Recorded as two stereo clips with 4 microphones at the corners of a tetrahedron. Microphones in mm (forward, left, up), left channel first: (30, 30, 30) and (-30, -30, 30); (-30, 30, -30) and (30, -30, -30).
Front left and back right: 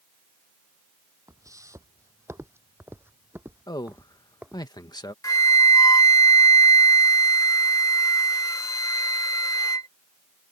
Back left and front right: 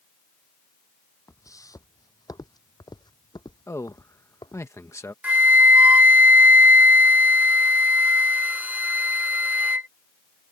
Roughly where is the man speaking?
Left.